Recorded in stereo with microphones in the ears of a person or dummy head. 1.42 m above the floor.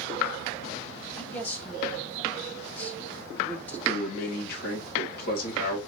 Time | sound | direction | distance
1.2 | a man speaking | 10° left (ahead or behind) | 1.3 m
3.9 | a man speaking | 55° left (ahead or behind) | 1.9 m